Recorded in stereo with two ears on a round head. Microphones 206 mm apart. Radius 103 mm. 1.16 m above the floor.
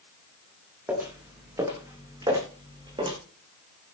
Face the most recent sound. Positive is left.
turn(degrees=-25)  # may be behind; listen again after turning